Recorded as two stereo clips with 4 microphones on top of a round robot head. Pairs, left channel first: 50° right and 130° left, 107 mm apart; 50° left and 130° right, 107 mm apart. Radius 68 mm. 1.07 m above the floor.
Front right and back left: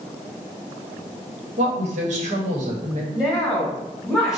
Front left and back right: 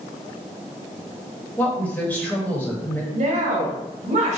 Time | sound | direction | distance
1.6 | a woman speaking | 130° left | 1.5 m
3.1 | a woman speaking | 145° right | 1.8 m